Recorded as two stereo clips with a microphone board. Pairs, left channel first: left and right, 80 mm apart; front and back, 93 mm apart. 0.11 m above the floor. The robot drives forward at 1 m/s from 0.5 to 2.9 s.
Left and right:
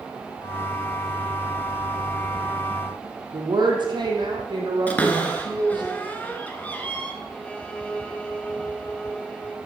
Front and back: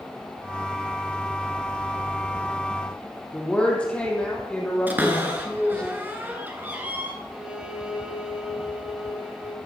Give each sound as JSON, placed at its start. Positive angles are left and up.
{"t": 3.3, "sound": "a woman speaking", "azimuth_deg": -80, "distance_m": 3.0}
{"t": 4.9, "sound": "a cupboard door", "azimuth_deg": 135, "distance_m": 1.9}
{"t": 7.3, "sound": "a violin", "azimuth_deg": 125, "distance_m": 1.4}